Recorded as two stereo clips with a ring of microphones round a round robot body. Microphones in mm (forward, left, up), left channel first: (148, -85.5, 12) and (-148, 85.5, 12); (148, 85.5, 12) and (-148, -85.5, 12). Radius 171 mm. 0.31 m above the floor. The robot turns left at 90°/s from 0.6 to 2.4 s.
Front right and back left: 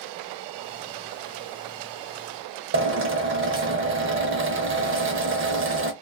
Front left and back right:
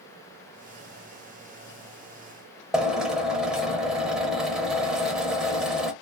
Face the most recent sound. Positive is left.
turn(degrees=125)